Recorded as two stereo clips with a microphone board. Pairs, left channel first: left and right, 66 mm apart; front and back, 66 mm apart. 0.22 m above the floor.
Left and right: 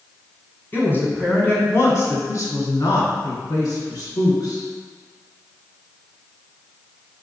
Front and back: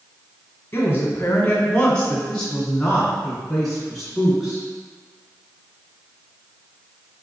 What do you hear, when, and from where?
0.7 s a woman speaking: 40° left, 1.5 m; by 4.6 s 100° left, 2.5 m